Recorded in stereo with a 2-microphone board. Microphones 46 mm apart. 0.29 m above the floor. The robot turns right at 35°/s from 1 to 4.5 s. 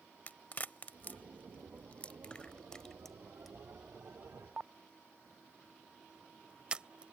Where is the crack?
35° left (ahead or behind); by 7.1 s 20° right (ahead or behind).